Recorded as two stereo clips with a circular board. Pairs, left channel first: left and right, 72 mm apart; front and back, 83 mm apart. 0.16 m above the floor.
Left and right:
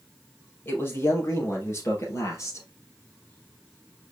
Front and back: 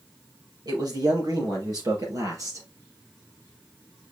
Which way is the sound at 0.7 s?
150° left.